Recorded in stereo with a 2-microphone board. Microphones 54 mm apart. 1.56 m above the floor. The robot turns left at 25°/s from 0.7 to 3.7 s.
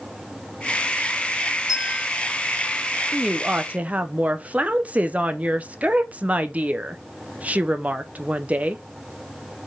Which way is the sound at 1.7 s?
10° right (ahead or behind).